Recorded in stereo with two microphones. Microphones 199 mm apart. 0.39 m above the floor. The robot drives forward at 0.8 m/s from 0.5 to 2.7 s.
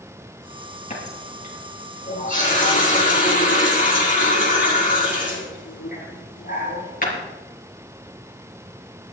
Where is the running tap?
35° left (ahead or behind), 6 m; by 7.2 s 45° left (ahead or behind), 5 m.